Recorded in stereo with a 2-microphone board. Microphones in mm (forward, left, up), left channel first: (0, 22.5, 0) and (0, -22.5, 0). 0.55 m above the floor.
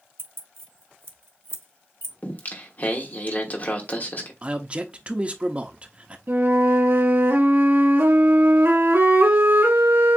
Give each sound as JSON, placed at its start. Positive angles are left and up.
{"t": 0.2, "sound": "keys jangling", "side_deg": -70, "distance_m": 0.9}
{"t": 2.2, "sound": "singing", "side_deg": 40, "distance_m": 1.2}
{"t": 4.4, "sound": "a man speaking", "side_deg": -30, "distance_m": 0.8}
{"t": 6.3, "sound": "a flute", "side_deg": -60, "distance_m": 1.7}